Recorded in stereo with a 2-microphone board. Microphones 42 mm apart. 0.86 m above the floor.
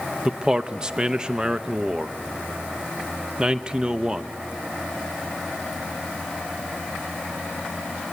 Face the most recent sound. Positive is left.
turn(degrees=-20)  # may be behind; listen again after turning